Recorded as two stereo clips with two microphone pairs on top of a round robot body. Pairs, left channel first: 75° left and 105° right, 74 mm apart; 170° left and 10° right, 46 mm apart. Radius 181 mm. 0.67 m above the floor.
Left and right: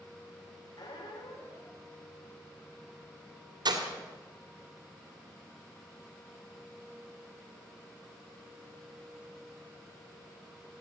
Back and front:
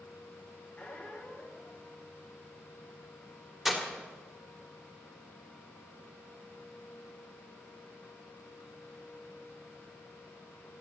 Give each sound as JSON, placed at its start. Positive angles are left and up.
{"t": 0.8, "sound": "a squeak", "azimuth_deg": 100, "distance_m": 1.7}
{"t": 3.6, "sound": "breaking glass", "azimuth_deg": -95, "distance_m": 2.0}